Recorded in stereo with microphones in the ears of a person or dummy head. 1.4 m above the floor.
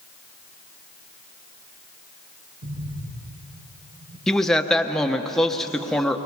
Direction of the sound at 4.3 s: 5° left (ahead or behind).